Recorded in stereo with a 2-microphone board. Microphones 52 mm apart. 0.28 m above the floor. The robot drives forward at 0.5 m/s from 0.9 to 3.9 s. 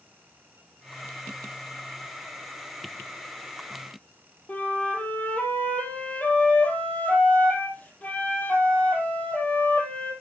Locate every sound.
4.5 s a flute: 25° left (ahead or behind), 4.5 m